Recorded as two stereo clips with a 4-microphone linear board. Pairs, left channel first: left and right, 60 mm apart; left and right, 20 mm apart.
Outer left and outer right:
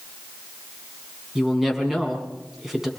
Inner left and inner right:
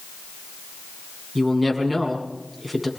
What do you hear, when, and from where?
1.4 s a woman speaking: 5° right (ahead or behind), 7.5 m